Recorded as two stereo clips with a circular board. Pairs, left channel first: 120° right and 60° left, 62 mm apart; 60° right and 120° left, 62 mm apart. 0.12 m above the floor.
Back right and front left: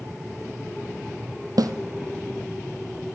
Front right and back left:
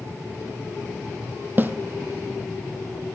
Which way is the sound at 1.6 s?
65° left.